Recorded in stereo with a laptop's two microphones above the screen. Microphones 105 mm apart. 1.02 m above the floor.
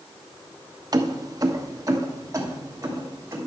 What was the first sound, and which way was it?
Keys jangling, 40° right (ahead or behind).